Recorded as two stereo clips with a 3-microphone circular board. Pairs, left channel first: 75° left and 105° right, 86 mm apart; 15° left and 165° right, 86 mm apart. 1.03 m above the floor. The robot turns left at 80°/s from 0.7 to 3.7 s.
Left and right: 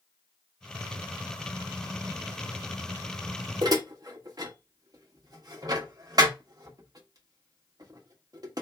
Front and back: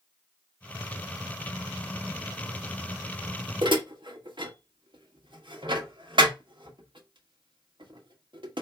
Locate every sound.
3.6 s dishes clattering: 140° right, 1.0 m; by 8.6 s 145° right, 1.0 m